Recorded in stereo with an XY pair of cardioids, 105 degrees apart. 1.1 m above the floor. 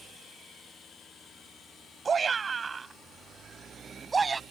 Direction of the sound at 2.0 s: 40° right.